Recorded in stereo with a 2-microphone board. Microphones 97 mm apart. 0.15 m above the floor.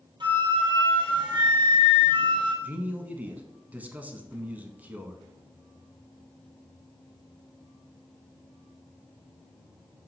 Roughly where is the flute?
Right.